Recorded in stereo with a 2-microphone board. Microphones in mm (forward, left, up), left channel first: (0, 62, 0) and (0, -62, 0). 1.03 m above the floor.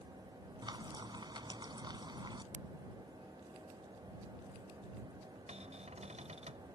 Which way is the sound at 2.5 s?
75° right (ahead or behind).